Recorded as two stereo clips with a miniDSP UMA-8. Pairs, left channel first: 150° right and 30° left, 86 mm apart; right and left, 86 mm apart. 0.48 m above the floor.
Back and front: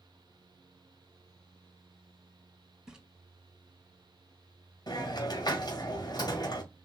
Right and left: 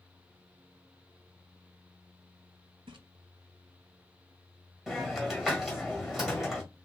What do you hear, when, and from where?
2.9 s a splash: 110° left, 0.8 m
4.9 s a hiss: 175° left, 1.6 m